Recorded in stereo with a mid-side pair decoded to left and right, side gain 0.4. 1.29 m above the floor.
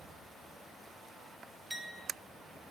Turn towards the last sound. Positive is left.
turn(degrees=-20)